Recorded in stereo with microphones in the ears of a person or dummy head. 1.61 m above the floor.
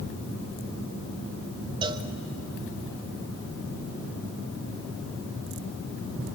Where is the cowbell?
20° right (ahead or behind), 0.9 m.